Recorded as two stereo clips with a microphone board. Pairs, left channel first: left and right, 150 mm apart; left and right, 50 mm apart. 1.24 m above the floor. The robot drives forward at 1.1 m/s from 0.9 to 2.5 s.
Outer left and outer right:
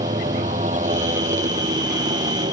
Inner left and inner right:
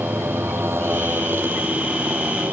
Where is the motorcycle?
55° right (ahead or behind); by 2.5 s 50° right (ahead or behind).